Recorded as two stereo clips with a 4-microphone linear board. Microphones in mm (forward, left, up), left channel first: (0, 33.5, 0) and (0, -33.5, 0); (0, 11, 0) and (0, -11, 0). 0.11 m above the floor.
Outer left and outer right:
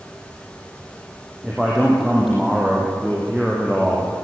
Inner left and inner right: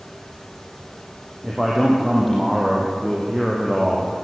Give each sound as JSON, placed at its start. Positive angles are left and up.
{"t": 1.4, "sound": "a man speaking", "side_deg": 0, "distance_m": 4.5}